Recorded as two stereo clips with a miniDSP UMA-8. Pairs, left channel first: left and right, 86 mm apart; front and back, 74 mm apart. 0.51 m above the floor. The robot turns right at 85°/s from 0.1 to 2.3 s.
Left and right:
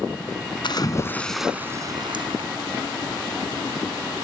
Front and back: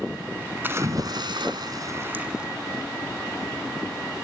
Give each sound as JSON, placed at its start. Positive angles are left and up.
{"t": 0.6, "sound": "a splash", "azimuth_deg": 115, "distance_m": 2.0}